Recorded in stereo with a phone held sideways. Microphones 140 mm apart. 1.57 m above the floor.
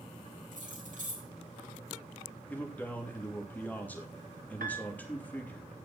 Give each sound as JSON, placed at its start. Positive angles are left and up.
{"t": 0.5, "sound": "keys jangling", "side_deg": -60, "distance_m": 7.5}
{"t": 2.5, "sound": "a man speaking", "side_deg": 10, "distance_m": 3.0}
{"t": 4.6, "sound": "a piano", "side_deg": -80, "distance_m": 1.9}